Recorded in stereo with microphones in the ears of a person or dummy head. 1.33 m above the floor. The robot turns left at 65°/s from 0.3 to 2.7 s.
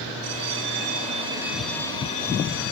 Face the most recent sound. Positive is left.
turn(degrees=115)